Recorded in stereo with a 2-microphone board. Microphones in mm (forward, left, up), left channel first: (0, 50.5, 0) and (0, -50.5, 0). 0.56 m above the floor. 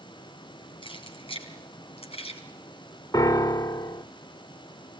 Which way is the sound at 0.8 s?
60° left (ahead or behind).